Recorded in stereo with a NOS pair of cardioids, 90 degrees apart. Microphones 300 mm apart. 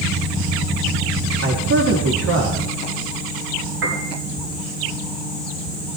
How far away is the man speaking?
About 3 m.